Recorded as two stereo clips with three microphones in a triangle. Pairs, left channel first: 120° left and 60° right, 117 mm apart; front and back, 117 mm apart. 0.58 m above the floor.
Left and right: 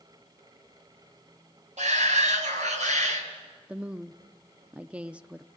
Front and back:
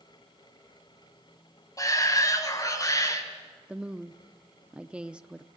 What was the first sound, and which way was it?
A shout, 60° right.